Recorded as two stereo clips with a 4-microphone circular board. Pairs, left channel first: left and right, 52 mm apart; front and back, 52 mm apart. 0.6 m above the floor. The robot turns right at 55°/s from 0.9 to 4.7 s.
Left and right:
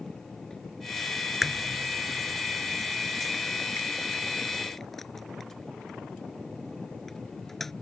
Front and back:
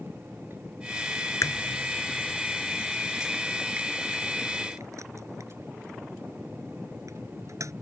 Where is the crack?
5° right; by 7.7 s 175° left.